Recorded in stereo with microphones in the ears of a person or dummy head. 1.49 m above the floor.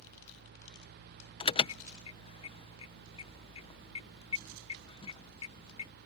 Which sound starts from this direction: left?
An alarm, at 1.4 s.